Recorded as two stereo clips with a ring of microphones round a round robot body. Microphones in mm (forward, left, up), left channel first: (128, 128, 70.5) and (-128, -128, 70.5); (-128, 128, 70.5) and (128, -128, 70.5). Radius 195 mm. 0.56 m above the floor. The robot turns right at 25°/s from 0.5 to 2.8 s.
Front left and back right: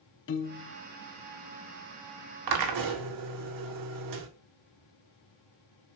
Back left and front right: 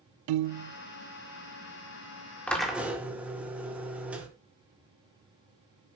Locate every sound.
0.3 s a piano: 15° right, 0.5 m; by 0.8 s 5° right, 0.5 m
2.5 s a drill: 140° right, 1.9 m; by 4.3 s 130° right, 1.9 m